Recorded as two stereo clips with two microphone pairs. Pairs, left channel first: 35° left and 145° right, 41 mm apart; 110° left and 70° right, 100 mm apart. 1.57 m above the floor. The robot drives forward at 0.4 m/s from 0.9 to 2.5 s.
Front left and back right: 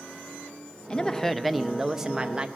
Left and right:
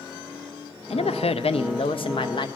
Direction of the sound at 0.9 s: 105° left.